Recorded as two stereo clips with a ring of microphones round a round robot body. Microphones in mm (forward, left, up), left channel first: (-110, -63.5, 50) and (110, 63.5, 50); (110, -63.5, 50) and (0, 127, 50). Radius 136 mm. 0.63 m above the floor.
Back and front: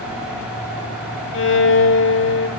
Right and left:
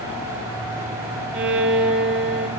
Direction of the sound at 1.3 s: 165° left.